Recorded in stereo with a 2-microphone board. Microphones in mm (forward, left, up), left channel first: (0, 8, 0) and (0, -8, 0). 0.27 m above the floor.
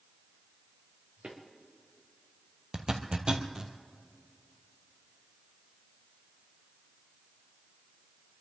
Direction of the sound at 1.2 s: 80° right.